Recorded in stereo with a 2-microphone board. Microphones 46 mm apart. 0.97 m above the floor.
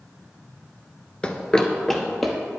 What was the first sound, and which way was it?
Running footsteps, 20° left (ahead or behind).